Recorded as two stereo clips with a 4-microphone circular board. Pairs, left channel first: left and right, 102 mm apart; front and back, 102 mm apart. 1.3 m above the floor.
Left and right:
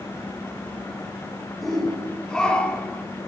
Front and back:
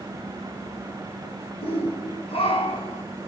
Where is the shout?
Straight ahead, 4 m; by 3.0 s 15° left, 3.5 m.